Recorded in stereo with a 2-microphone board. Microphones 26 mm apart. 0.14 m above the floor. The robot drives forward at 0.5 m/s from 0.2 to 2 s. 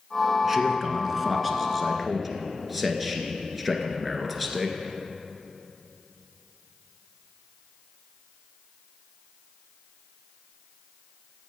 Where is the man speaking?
10° right (ahead or behind), 1.2 m; by 4.8 s 5° right (ahead or behind), 1.7 m.